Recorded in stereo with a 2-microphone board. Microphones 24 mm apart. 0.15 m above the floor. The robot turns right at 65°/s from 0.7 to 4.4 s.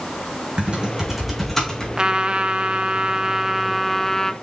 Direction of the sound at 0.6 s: 50° right (ahead or behind).